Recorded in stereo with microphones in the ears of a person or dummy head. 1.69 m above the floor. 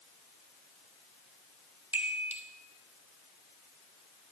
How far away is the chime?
About 0.9 m.